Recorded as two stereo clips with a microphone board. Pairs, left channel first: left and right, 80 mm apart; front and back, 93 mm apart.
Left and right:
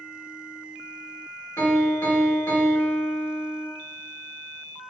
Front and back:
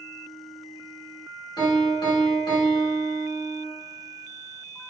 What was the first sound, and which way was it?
A piano, 35° left.